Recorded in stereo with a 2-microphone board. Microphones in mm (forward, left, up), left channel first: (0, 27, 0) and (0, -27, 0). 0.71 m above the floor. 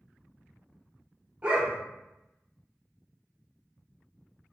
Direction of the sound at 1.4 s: 25° right (ahead or behind).